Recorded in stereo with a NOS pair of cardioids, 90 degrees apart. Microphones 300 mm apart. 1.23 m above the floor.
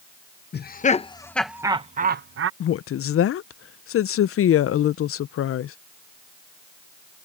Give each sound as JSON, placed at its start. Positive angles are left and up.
{"t": 0.5, "sound": "laughter", "azimuth_deg": 35}
{"t": 2.6, "sound": "a woman speaking", "azimuth_deg": 50}